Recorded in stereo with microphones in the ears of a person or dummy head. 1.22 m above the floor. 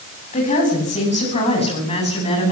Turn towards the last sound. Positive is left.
turn(degrees=35)  # may be behind; listen again after turning